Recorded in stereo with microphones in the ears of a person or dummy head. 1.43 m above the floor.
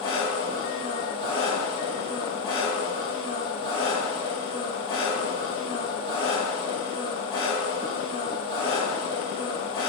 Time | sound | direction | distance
0.0 | an engine running | 40° left (ahead or behind) | 1.5 m